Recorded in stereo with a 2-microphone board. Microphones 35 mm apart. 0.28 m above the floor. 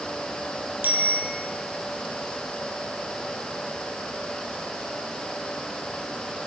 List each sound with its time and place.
0.8 s a bicycle bell: 70° right (ahead or behind), 5.5 m